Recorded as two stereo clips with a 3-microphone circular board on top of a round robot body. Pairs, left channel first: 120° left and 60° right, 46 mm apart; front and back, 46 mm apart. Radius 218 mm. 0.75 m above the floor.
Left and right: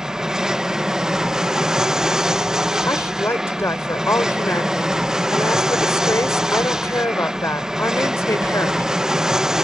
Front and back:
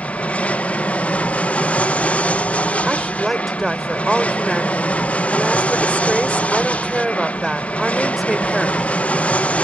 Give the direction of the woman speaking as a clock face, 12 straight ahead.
9 o'clock.